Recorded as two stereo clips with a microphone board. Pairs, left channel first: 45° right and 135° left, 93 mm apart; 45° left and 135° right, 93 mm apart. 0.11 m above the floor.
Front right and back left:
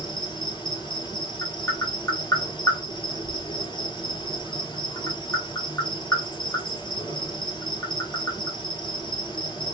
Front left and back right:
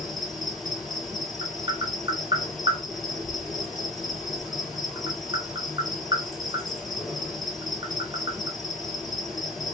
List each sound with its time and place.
0.0 s an insect: 45° right, 1.3 m
1.4 s tapping: 100° right, 1.0 m